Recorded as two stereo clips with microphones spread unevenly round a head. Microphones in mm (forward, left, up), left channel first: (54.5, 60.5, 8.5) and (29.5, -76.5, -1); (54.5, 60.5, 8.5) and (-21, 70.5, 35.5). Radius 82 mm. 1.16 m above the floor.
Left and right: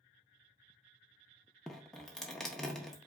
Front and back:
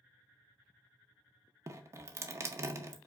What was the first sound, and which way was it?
Dripping, 160° left.